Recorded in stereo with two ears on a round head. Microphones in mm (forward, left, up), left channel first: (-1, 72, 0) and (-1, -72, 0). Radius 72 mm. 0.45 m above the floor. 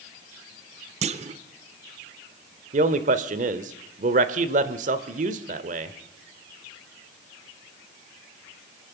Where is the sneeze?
No sneeze in this recording.